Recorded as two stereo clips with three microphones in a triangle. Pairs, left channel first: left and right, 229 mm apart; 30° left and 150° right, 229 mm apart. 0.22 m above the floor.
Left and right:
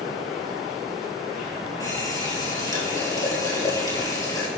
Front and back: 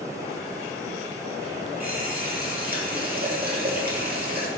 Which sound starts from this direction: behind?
A running tap, at 1.8 s.